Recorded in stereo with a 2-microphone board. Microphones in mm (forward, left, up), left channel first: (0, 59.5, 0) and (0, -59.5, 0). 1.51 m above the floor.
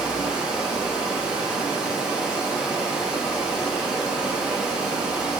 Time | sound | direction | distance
0.0 | running water | 5° right (ahead or behind) | 0.7 m